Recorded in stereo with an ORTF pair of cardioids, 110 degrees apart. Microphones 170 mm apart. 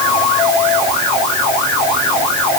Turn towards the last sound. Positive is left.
No sound to turn to.